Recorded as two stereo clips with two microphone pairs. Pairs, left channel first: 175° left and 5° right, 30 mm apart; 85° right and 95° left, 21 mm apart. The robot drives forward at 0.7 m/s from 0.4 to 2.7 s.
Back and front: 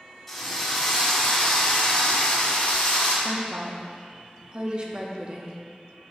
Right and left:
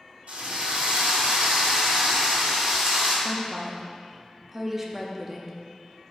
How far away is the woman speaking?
About 0.8 m.